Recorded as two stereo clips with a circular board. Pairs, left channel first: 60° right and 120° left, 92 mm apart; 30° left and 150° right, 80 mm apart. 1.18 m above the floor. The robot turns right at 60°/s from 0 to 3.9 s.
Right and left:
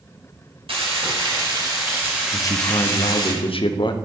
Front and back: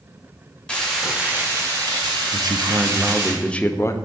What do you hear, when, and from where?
0.7 s frying: 105° left, 2 m; by 3.3 s 95° right, 2 m
2.3 s a man speaking: 120° right, 0.5 m; by 4.0 s 25° right, 0.5 m